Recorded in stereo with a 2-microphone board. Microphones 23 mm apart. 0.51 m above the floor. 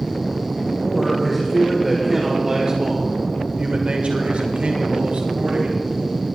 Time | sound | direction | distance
0.8 | a man speaking | 10° left (ahead or behind) | 2.5 m